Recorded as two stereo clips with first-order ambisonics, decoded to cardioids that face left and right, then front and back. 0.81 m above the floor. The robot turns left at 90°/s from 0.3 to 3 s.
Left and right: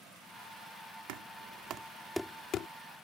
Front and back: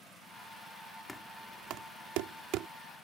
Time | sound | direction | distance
1.1 | knocking | 85° right | ?